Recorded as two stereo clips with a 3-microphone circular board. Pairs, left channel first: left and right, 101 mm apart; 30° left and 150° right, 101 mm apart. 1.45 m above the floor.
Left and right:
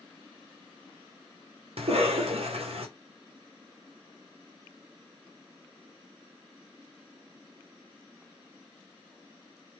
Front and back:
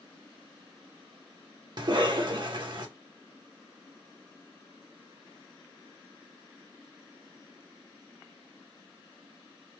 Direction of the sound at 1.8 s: 110° right.